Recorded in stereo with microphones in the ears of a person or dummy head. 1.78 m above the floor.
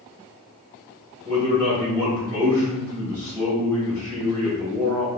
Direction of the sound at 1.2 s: 10° left (ahead or behind).